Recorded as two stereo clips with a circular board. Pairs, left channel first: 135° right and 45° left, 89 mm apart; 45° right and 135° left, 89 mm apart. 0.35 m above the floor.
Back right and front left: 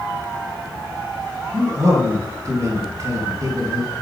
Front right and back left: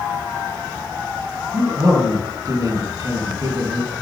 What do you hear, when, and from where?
1.5 s a man speaking: 95° left, 3.5 m